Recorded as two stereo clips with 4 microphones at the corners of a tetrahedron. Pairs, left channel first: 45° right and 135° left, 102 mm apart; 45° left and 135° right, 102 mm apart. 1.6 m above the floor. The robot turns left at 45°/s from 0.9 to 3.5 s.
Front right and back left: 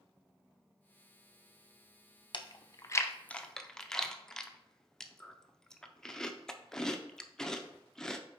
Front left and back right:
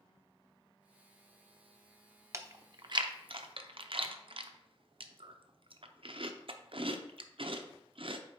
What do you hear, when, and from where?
2.3 s chewing: 75° right, 0.5 m; by 8.2 s 130° right, 0.5 m